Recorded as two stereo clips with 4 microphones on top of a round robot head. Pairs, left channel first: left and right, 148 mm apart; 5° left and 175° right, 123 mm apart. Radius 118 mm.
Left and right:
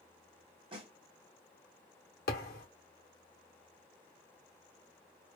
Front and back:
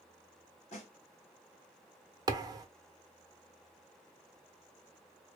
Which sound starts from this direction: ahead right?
A snare drum, at 0.7 s.